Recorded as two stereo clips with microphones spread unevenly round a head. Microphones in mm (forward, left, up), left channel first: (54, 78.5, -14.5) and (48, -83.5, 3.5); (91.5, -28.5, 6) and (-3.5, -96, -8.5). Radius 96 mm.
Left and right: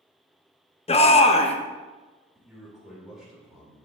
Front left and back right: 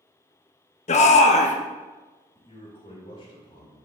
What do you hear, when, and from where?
0.9 s a shout: 35° left, 1.0 m
2.4 s a man speaking: 5° right, 3.5 m